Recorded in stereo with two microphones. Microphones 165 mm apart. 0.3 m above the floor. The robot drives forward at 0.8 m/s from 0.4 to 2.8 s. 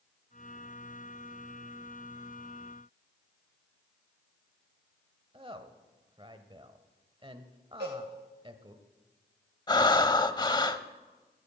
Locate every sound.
5.3 s a woman speaking: 30° right (ahead or behind), 1.0 m
7.8 s a cowbell: 80° right, 9 m
9.7 s breathing: 25° left (ahead or behind), 0.6 m